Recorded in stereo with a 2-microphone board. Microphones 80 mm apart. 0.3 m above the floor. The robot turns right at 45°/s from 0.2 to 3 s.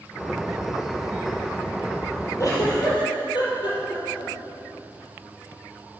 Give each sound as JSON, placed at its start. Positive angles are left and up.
{"t": 2.4, "sound": "a giggle", "side_deg": 45, "distance_m": 4.5}